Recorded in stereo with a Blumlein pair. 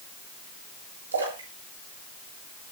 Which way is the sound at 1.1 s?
70° right.